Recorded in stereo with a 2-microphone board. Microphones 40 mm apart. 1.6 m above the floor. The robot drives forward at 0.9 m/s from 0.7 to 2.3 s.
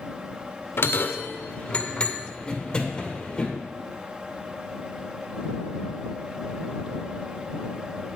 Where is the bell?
65° left (ahead or behind), 0.8 m; by 3.5 s 20° left (ahead or behind), 1.8 m.